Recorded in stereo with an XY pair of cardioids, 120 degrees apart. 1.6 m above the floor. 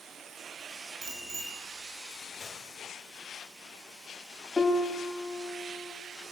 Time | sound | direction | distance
1.0 | a bicycle bell | 40° right | 9.5 m
2.4 | a gunshot | 25° left | 5.5 m
4.6 | a piano | 15° left | 3 m